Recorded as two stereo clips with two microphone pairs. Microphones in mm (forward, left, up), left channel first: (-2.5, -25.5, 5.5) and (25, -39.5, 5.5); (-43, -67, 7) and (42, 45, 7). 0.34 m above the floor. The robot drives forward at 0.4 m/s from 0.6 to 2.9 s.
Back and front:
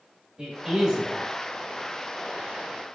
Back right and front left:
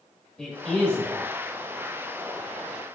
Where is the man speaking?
45° right, 1.3 m; by 1.2 s 65° right, 1.2 m.